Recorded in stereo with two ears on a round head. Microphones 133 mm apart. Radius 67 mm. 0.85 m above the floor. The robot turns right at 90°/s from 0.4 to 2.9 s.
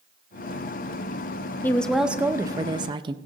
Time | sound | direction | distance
1.6 | a woman speaking | 150° left | 0.7 m